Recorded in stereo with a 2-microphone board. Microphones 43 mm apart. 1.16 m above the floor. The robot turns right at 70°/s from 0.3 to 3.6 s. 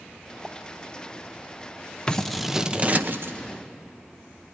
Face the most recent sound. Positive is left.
turn(degrees=-95)